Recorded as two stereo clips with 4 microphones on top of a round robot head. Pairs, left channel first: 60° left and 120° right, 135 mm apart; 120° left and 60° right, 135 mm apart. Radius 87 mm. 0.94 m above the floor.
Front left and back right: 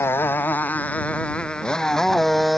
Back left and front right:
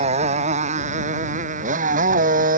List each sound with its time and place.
0.0 s a motorcycle: 15° right; by 2.6 s 30° right